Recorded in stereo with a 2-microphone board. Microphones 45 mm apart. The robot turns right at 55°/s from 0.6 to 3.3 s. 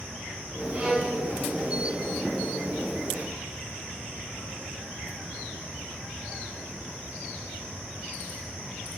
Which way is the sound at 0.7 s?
35° right (ahead or behind).